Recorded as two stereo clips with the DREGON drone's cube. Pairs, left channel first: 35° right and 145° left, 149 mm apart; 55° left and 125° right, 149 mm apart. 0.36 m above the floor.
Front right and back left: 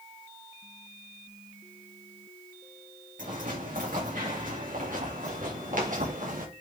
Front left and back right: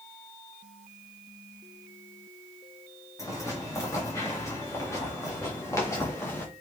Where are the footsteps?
125° left, 5.5 m.